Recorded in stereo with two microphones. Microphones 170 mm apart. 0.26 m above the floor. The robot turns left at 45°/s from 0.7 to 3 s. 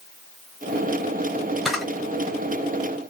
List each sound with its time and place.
1.6 s a camera shutter: centre (ahead or behind), 1.3 m